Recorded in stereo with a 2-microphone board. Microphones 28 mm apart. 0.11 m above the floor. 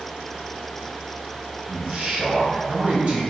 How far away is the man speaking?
About 2.0 m.